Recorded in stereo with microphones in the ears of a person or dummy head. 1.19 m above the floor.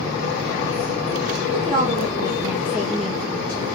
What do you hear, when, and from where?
1.5 s a woman speaking: 25° right (ahead or behind), 2.5 m; by 3.6 s 15° left (ahead or behind), 2 m